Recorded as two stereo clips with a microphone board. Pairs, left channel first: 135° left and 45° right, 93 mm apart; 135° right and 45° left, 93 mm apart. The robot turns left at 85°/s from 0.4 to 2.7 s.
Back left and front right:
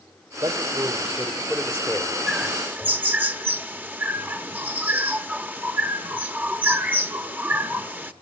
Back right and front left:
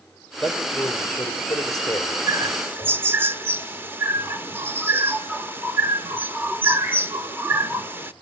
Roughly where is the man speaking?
Ahead right.